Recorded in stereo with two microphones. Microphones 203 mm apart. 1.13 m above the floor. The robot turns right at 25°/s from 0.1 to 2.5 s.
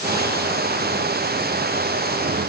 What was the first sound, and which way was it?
Only background noise.